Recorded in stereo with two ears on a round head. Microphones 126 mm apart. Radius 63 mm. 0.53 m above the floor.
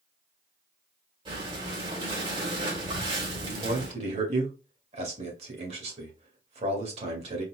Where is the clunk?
No clunk in this recording.